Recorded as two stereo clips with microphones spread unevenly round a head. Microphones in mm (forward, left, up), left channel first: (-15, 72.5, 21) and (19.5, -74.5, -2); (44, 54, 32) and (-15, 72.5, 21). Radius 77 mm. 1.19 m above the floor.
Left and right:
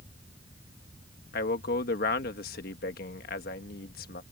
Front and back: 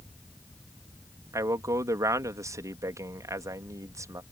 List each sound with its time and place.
1.3 s a man speaking: 135° left